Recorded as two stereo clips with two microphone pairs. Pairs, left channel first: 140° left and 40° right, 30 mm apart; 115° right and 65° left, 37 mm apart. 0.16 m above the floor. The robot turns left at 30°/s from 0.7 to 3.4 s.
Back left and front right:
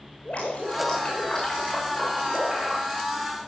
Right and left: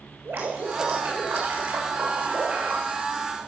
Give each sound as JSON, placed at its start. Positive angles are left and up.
{"t": 0.2, "sound": "dripping", "azimuth_deg": 95, "distance_m": 9.0}